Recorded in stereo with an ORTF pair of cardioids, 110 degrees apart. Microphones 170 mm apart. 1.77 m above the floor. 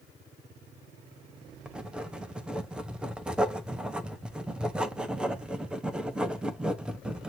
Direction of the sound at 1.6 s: 5° right.